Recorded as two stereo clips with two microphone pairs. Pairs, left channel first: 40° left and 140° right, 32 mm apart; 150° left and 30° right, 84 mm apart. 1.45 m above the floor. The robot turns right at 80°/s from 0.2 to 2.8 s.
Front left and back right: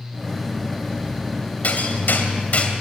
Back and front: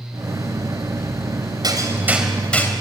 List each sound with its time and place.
1.6 s hammering: straight ahead, 3 m; by 2.7 s 90° left, 3 m